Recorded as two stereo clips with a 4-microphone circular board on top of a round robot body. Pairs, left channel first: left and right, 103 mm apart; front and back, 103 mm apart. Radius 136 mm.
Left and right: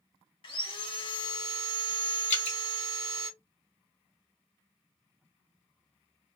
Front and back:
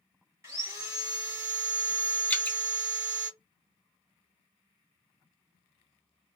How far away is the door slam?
No door slam in this recording.